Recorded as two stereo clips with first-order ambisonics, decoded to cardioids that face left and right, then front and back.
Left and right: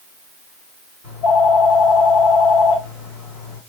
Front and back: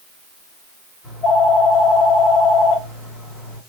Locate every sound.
1.0 s a phone ringing: 95° left, 2 m